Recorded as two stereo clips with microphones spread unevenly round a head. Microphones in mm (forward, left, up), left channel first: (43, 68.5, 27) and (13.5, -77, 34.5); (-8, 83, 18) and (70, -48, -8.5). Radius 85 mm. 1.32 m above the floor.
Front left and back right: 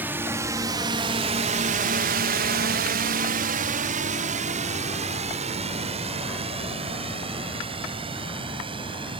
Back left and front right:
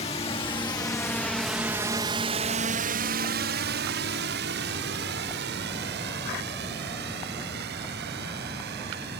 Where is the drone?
Straight behind; by 9.2 s 45° right.